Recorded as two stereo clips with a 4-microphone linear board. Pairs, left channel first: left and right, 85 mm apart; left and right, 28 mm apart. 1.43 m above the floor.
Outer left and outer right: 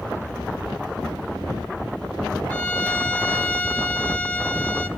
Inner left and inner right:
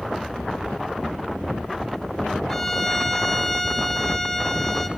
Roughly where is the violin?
Centre.